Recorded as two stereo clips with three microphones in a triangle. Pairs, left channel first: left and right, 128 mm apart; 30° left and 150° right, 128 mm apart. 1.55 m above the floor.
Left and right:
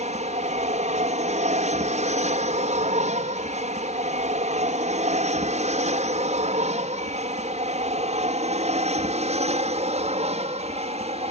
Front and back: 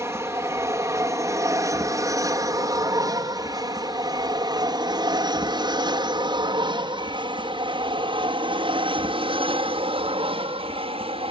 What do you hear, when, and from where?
0.0 s an aircraft: 85° right; by 11.3 s 115° right